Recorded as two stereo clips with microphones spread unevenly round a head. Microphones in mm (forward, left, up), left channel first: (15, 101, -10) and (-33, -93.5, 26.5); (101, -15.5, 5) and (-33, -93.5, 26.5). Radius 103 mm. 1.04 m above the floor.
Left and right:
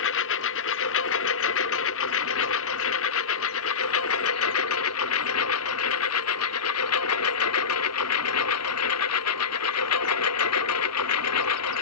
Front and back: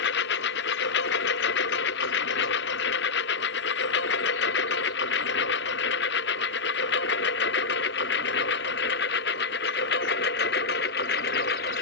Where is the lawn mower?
45° left; by 11.8 s 75° left.